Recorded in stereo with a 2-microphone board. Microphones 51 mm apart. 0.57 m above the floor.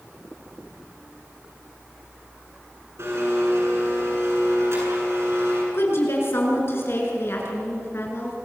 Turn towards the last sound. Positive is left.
turn(degrees=55)  # may be behind; listen again after turning